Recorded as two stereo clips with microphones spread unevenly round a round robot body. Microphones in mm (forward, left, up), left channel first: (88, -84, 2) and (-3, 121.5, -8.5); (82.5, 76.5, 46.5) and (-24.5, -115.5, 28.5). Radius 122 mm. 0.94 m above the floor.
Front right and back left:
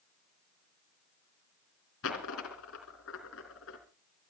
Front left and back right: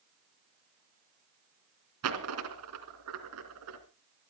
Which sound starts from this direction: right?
A dropped coin, at 2.0 s.